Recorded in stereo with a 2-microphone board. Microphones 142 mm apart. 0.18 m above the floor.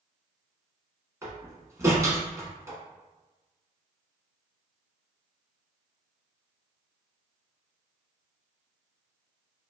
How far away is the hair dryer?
No hair dryer in this recording.